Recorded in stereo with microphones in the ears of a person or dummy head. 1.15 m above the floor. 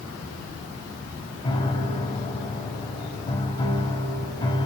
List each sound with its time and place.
1.4 s a piano: 30° left (ahead or behind), 2 m